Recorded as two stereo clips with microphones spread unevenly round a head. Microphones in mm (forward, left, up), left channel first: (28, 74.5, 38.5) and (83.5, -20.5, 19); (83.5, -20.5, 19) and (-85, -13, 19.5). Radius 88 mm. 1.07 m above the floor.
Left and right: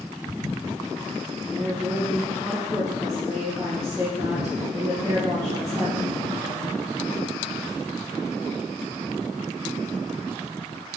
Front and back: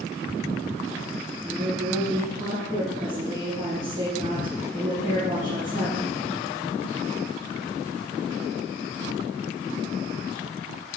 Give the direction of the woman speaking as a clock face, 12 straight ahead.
5 o'clock.